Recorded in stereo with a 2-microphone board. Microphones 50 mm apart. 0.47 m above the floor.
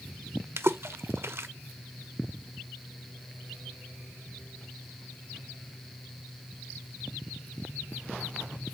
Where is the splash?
55° right (ahead or behind), 0.6 m.